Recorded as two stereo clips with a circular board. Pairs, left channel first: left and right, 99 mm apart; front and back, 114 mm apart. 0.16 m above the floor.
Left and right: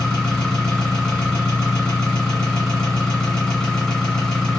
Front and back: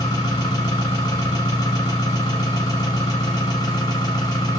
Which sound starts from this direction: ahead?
An engine running, at 0.0 s.